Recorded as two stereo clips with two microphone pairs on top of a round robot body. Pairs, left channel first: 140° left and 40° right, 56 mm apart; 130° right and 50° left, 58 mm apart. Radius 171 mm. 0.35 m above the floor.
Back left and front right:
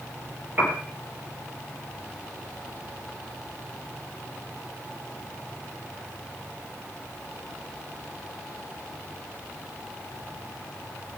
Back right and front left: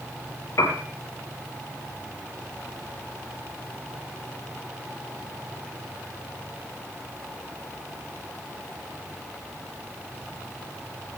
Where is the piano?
95° right, 3.5 m.